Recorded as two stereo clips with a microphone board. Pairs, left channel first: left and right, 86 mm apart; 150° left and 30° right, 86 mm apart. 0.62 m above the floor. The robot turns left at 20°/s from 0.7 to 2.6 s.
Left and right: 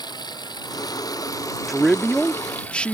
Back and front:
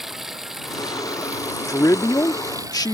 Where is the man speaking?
175° right; by 2.9 s 165° left.